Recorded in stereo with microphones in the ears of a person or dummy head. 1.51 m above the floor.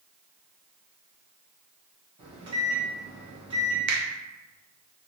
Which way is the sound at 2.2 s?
30° right (ahead or behind).